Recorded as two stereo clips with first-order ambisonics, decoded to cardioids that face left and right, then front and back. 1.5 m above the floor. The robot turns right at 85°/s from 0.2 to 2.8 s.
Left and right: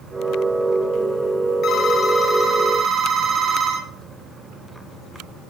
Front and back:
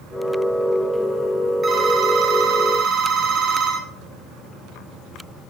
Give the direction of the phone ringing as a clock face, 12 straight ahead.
8 o'clock.